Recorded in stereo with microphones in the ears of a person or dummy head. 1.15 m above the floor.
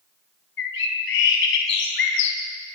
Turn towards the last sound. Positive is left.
turn(degrees=65)  # may be behind; listen again after turning